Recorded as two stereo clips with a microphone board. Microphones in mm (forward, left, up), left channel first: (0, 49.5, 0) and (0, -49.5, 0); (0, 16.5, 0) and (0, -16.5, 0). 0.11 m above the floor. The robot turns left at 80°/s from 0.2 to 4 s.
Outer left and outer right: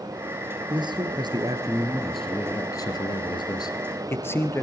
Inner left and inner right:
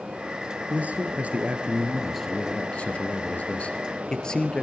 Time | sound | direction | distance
0.7 | a man speaking | 65° right | 1.7 m